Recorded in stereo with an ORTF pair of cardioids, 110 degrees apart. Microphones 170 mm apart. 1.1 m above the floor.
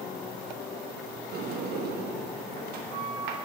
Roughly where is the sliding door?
Right.